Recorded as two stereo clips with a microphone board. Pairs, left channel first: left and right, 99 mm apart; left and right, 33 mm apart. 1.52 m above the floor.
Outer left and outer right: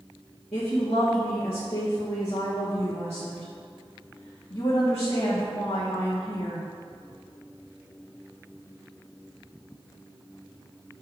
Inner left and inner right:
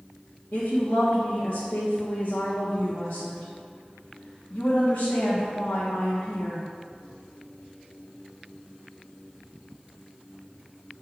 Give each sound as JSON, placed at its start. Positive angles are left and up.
{"t": 0.5, "sound": "a woman speaking", "side_deg": 75, "distance_m": 1.4}